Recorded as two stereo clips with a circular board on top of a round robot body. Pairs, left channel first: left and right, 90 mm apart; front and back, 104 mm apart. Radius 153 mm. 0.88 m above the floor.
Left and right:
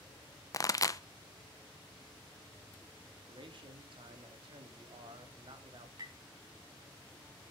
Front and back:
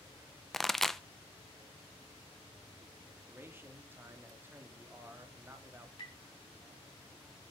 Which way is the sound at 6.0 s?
45° right.